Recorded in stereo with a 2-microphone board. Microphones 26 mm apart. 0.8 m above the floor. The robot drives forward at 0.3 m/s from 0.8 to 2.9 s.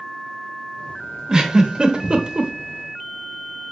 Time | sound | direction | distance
1.3 | a giggle | 25° right (ahead or behind) | 0.9 m